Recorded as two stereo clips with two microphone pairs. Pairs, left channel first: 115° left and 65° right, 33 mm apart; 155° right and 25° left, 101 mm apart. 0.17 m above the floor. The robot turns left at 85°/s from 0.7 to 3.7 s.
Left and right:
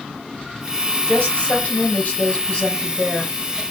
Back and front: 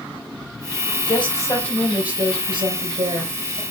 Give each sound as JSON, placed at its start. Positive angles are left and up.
{"t": 1.1, "sound": "a woman speaking", "azimuth_deg": 180, "distance_m": 3.0}